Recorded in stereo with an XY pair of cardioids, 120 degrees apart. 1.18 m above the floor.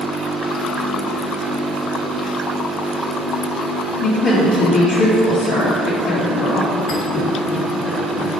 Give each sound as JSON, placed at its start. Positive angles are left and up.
{"t": 4.0, "sound": "a woman speaking", "azimuth_deg": 65, "distance_m": 1.6}
{"t": 6.9, "sound": "a thud", "azimuth_deg": 60, "distance_m": 1.7}